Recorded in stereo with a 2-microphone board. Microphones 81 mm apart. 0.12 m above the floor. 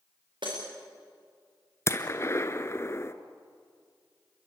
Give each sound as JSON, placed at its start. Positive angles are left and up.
{"t": 0.4, "sound": "breaking glass", "side_deg": -80, "distance_m": 7.5}
{"t": 1.9, "sound": "a gunshot", "side_deg": 35, "distance_m": 1.1}